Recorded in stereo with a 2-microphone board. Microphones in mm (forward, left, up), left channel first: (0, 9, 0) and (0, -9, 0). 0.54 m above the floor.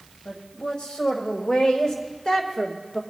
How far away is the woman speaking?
About 2.5 m.